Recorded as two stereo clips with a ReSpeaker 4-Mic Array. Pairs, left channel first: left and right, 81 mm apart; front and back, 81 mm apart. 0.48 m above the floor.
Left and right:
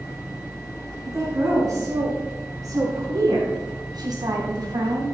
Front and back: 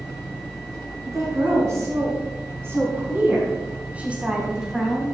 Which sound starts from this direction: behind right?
A woman speaking, at 1.1 s.